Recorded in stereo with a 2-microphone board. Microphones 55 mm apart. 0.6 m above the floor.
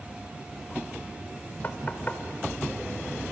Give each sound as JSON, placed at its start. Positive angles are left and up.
{"t": 1.6, "sound": "knocking", "side_deg": 35, "distance_m": 1.5}